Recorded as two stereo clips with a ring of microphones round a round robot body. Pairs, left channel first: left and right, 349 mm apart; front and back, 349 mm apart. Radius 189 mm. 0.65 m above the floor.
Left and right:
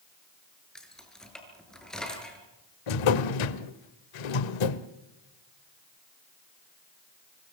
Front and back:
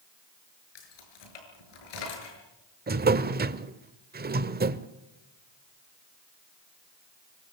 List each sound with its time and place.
0.8 s keys jangling: straight ahead, 7 m
2.9 s a drawer: 115° left, 1.1 m